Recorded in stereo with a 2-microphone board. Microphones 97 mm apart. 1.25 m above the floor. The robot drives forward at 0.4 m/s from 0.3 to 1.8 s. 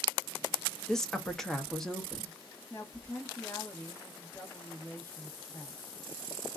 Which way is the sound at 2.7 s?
20° left (ahead or behind).